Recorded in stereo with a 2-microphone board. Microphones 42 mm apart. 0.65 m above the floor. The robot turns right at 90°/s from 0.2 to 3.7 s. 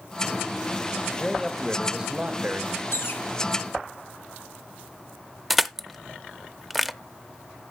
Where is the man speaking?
20° left (ahead or behind), 1.2 m; by 2.8 s 30° right (ahead or behind), 1.2 m.